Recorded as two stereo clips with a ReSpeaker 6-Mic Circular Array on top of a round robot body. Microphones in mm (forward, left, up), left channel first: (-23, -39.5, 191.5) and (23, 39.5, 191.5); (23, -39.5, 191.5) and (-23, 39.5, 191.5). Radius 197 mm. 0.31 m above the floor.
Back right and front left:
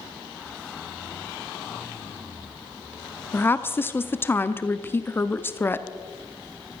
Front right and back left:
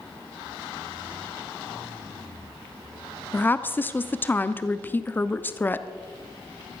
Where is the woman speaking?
95° right, 1.0 m.